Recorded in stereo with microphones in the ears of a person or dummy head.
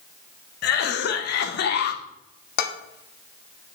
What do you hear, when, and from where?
0.6 s a cough: 60° left (ahead or behind), 0.9 m
2.6 s dishes clattering: 60° left (ahead or behind), 1.2 m